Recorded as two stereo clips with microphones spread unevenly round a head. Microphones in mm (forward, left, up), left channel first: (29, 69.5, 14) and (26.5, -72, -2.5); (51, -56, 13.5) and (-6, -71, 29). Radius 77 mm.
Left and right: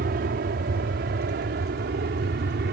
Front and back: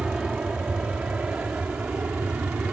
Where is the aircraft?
90° right; by 2.7 s 100° right.